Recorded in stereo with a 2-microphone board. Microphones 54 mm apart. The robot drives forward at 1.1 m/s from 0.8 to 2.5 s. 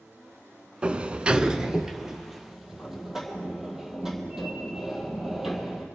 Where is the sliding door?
20° right (ahead or behind), 0.5 m; by 5.9 s 5° right (ahead or behind), 1.7 m.